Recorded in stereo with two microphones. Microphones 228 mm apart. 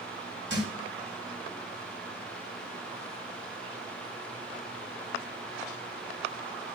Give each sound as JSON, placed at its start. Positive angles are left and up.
{"t": 0.5, "sound": "a thud", "side_deg": -55, "distance_m": 7.5}